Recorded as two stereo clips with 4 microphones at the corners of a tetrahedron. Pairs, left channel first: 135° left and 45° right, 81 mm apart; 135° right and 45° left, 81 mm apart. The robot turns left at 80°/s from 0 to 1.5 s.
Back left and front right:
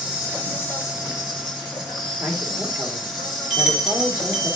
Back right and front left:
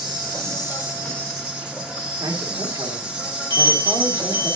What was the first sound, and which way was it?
An insect, 115° right.